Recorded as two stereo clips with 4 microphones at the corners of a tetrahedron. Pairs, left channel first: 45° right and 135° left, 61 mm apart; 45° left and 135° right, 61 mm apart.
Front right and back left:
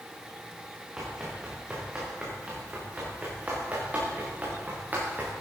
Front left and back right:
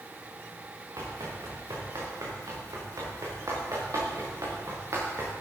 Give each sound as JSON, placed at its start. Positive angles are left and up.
{"t": 1.0, "sound": "running footsteps", "azimuth_deg": -145, "distance_m": 6.5}